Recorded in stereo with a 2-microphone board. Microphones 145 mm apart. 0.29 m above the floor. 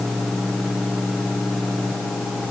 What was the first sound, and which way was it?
Only background noise.